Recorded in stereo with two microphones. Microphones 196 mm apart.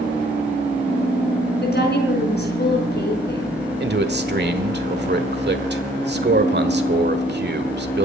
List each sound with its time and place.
1.6 s a woman speaking: 55° left (ahead or behind), 4.5 m
3.8 s a man speaking: 55° right (ahead or behind), 1.4 m